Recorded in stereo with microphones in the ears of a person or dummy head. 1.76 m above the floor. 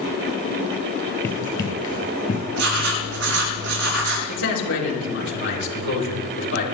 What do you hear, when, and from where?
1.2 s running footsteps: 15° left (ahead or behind), 2.5 m; by 2.4 s 40° left (ahead or behind), 2 m
2.5 s writing: 70° right (ahead or behind), 7 m
4.3 s a man speaking: 75° left (ahead or behind), 4.5 m